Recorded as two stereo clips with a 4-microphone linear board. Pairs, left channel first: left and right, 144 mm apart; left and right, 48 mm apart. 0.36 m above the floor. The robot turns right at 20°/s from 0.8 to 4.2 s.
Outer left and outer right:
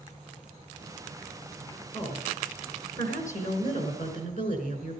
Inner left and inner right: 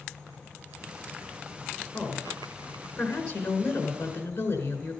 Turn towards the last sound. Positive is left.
turn(degrees=85)